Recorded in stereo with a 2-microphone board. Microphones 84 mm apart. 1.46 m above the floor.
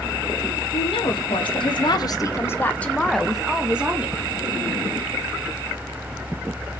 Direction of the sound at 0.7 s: 90° left.